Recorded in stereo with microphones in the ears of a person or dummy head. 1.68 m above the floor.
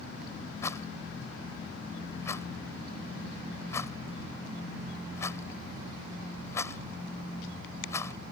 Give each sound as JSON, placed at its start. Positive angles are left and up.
{"t": 0.6, "sound": "a rattle", "side_deg": 20}